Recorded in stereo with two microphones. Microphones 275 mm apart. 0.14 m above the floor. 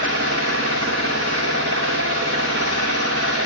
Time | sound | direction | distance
0.0 | an engine running | 60° right (ahead or behind) | 5 m